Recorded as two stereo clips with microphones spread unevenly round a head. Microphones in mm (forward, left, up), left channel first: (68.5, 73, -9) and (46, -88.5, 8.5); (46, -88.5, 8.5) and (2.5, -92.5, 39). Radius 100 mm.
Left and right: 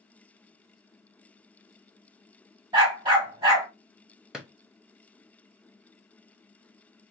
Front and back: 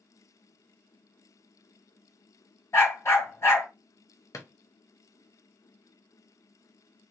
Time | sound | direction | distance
2.7 | a dog barking | 45° right | 2 m
4.3 | a drawer | 20° right | 0.9 m